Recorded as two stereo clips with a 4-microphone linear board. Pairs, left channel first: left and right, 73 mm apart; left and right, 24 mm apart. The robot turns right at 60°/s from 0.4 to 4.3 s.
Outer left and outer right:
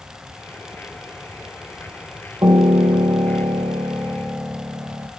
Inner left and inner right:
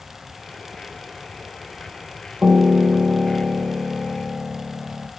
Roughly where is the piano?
Behind right.